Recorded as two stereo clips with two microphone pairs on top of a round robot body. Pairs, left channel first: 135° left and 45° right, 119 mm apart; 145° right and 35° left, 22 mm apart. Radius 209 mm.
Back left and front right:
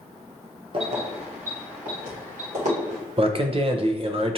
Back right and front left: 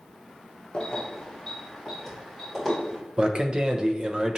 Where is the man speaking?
10° right, 0.9 m.